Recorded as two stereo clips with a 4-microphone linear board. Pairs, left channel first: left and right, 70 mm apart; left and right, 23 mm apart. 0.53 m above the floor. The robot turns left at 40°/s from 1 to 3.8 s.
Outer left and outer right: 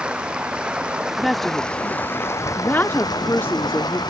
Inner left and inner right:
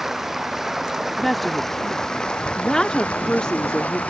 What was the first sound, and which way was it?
Running water, 165° right.